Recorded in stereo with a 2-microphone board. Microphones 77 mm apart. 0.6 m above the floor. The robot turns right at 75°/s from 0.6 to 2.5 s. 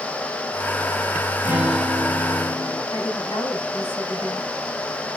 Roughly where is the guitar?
Ahead right.